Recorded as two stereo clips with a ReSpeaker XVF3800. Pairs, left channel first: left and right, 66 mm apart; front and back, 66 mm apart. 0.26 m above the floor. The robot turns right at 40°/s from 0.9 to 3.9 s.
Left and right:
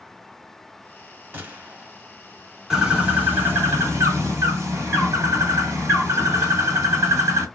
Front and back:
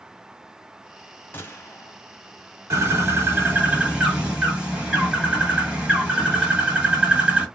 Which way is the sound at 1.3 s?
45° right.